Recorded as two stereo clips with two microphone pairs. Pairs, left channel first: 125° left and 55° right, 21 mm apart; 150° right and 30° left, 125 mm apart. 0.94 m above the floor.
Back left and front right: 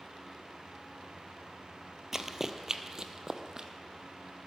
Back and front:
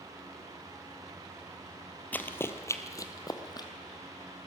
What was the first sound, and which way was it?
Running footsteps, 90° right.